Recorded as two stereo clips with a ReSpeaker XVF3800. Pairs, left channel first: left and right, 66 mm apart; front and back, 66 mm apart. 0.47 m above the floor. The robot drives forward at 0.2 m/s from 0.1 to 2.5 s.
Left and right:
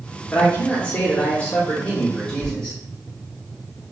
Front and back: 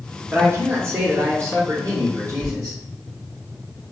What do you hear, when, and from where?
0.3 s a man speaking: 145° left, 0.9 m; by 2.8 s 160° left, 1.2 m
2.4 s a sliding door: 160° right, 1.6 m